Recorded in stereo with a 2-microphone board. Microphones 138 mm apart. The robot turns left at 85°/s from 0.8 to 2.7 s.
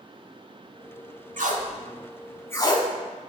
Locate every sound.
1.4 s tape being pulled: 75° right (ahead or behind), 0.5 m; by 2.9 s 35° left (ahead or behind), 0.5 m